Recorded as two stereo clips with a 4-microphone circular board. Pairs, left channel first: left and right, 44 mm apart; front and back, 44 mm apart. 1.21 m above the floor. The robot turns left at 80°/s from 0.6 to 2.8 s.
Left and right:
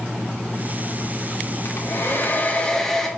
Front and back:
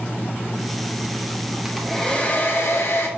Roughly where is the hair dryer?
Left.